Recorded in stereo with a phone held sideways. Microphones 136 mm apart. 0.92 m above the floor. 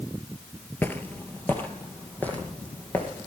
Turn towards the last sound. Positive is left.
turn(degrees=10)  # may be behind; listen again after turning